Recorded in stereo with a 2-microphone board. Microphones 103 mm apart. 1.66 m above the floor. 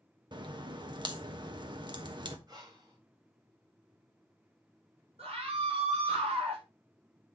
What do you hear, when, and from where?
0.3 s a crack: 45° right (ahead or behind), 1.1 m
2.5 s breathing: 40° right (ahead or behind), 2 m
5.2 s a scream: 80° right, 6 m